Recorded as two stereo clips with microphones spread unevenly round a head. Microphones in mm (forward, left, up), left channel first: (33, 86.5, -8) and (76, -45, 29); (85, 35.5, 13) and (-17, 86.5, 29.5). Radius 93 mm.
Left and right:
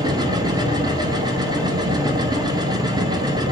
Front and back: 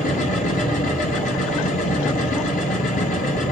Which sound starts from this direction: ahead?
A machine running, at 0.0 s.